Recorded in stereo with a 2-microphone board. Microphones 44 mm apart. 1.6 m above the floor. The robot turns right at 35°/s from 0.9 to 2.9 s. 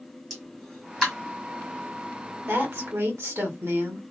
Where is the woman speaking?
70° right (ahead or behind), 1.5 m; by 4.0 s 85° right, 1.5 m.